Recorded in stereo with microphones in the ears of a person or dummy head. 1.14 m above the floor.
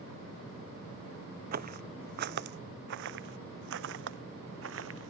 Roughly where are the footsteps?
Right.